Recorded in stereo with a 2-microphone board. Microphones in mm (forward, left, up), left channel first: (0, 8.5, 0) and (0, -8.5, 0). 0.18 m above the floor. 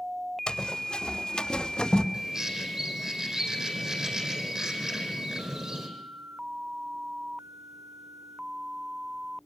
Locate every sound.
0.5 s running footsteps: 85° left, 3.5 m; by 2.0 s 80° left, 2.5 m
2.1 s a bird: 45° right (ahead or behind), 4.5 m